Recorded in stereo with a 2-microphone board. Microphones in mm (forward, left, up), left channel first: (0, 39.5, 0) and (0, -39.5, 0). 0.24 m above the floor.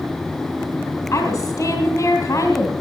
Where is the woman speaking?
40° left (ahead or behind), 1.8 m.